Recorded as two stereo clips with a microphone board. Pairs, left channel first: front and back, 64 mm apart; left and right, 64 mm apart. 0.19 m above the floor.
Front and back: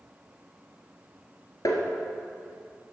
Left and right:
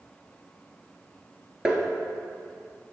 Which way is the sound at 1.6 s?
10° right.